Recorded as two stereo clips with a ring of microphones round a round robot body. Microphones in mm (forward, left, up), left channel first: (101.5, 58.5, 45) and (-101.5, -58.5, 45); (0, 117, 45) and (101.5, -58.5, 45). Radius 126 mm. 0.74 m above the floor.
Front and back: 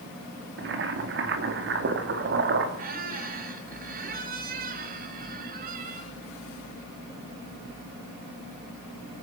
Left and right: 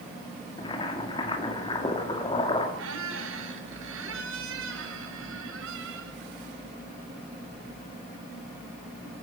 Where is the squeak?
95° right, 1.9 m.